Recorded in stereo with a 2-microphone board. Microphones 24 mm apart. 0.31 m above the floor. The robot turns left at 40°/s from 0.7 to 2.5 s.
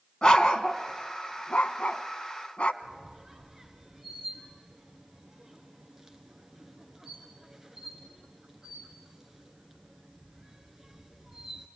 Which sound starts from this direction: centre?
A squeak, at 2.8 s.